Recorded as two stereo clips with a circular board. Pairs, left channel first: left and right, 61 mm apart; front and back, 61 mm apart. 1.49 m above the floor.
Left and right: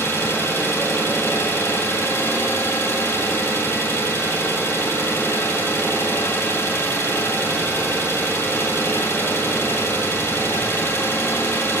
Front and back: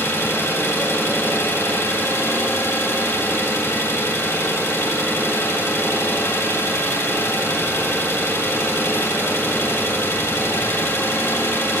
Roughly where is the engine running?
Ahead left.